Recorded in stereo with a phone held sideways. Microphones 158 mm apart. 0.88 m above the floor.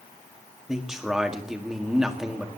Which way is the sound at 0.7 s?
5° right (ahead or behind).